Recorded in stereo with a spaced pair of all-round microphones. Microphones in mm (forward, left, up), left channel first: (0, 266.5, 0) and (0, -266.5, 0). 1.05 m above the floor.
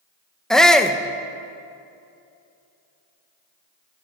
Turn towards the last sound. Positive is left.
turn(degrees=0)  # may be behind; listen again after turning